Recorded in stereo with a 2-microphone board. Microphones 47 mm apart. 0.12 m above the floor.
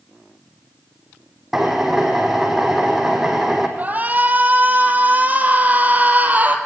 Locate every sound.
1.5 s a drill: 5° right (ahead or behind), 4 m
3.8 s a shout: 35° right (ahead or behind), 3.5 m